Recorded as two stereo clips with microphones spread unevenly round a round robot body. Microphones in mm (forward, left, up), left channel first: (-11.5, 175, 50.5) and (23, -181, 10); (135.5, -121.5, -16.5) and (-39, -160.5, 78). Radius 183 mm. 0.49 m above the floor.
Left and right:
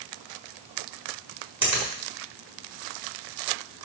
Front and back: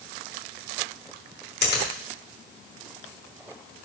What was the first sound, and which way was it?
A finger snap, straight ahead.